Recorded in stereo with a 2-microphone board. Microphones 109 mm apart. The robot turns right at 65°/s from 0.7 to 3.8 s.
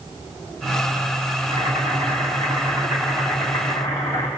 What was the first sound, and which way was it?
Boiling, 120° right.